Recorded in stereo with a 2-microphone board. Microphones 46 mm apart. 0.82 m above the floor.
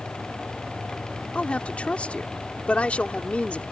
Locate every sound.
1.4 s a woman speaking: 25° left (ahead or behind)